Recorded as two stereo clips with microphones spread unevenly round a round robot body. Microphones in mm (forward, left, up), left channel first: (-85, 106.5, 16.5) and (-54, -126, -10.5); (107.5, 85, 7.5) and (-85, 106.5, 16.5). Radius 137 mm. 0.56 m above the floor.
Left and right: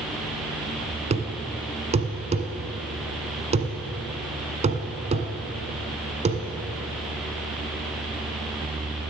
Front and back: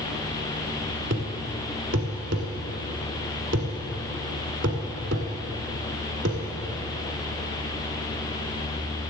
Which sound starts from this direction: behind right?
A thud, at 1.1 s.